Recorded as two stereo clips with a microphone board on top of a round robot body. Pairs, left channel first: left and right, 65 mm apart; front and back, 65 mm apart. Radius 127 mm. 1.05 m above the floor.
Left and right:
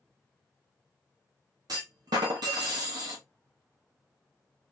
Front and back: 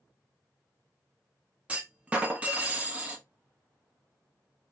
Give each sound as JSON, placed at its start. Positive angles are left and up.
{"t": 1.7, "sound": "a clunk", "azimuth_deg": -110, "distance_m": 0.7}